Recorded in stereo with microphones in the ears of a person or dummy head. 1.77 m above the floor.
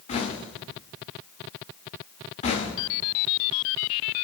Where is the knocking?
35° left (ahead or behind), 2 m.